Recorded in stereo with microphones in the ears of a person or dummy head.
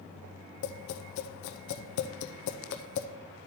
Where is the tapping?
65° left (ahead or behind), 0.7 m.